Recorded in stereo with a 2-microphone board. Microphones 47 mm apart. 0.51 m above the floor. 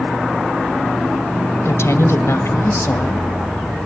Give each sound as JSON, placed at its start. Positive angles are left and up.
{"t": 1.6, "sound": "a woman speaking", "side_deg": 65, "distance_m": 2.0}